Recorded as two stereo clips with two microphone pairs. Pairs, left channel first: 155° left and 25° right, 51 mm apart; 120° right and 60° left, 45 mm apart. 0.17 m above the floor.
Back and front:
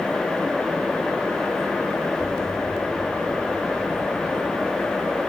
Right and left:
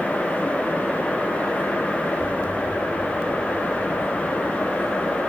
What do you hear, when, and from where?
2.2 s an explosion: 30° left, 3 m